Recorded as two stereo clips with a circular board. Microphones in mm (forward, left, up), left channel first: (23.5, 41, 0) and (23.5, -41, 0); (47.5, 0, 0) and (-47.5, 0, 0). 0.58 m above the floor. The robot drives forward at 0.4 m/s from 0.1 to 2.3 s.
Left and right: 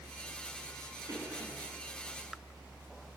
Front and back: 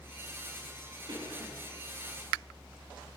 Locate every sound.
1.1 s a cough: 140° right, 6.5 m